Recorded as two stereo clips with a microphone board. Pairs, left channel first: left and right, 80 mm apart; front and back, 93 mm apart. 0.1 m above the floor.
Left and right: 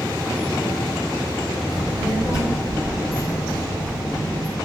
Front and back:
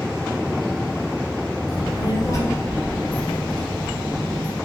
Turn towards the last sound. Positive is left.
turn(degrees=115)